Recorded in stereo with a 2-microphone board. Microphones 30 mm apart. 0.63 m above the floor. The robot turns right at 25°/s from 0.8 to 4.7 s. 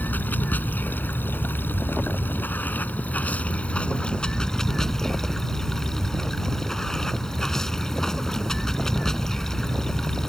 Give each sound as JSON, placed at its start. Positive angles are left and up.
{"t": 0.0, "sound": "running water", "azimuth_deg": 70}